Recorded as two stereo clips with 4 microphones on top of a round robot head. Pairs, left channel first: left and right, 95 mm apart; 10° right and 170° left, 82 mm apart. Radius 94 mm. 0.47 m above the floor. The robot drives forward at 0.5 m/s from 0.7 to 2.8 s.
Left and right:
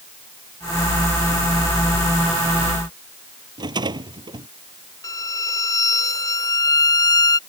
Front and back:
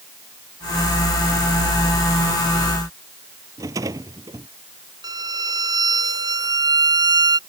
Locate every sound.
3.6 s a rattle: 130° right
5.0 s a violin: 140° left